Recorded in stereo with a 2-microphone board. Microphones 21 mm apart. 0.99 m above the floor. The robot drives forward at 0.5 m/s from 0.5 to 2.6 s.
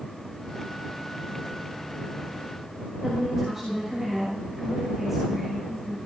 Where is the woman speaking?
20° right (ahead or behind), 6 m.